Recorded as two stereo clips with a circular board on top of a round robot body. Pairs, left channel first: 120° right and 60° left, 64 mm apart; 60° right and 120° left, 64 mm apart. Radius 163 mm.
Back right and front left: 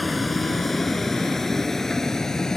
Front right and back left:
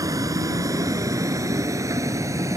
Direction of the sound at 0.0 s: 150° left.